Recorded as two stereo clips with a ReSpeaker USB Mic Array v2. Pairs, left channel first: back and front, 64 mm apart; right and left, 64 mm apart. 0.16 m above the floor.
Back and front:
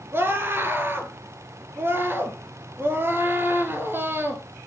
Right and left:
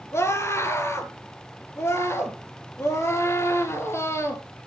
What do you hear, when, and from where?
0.1 s a scream: 50° right, 3 m